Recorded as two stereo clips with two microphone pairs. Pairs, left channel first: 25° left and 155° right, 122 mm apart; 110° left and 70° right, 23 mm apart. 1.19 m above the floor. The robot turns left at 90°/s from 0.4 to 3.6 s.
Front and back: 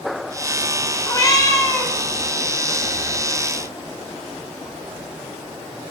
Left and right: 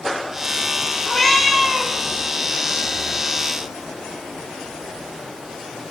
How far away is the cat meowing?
About 1.2 m.